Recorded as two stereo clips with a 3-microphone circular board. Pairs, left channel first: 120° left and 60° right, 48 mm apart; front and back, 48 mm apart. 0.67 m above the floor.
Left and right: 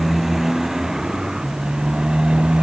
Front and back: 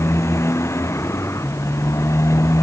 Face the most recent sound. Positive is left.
turn(degrees=15)